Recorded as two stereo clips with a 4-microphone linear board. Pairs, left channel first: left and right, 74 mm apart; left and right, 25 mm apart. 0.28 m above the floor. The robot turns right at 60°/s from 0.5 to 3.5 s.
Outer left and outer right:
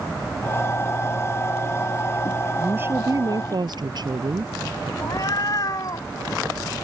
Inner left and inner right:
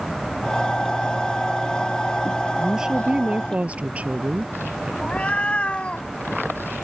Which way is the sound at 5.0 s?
60° left (ahead or behind).